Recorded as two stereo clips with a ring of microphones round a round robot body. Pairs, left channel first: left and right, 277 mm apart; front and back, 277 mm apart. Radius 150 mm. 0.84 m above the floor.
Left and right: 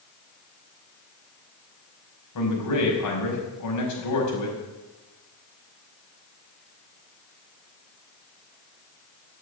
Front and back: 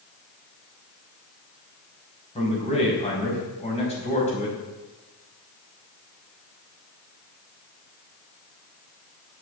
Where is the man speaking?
70° left, 5 m.